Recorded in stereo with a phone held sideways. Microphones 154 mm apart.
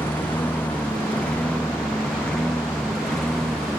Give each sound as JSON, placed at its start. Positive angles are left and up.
{"t": 0.0, "sound": "a lawn mower", "side_deg": 10}